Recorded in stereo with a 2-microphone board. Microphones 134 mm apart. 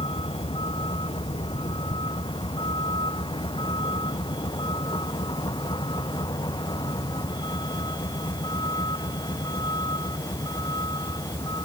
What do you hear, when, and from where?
0.0 s a vehicle: 40° left (ahead or behind); by 11.7 s 30° left (ahead or behind)